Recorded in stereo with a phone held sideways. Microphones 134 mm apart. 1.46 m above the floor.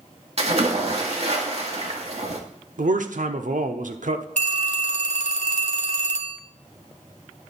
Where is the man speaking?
70° right (ahead or behind), 0.8 m.